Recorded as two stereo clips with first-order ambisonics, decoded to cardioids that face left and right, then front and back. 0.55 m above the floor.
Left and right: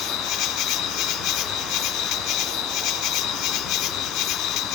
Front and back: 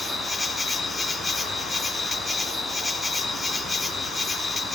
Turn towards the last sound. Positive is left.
turn(degrees=75)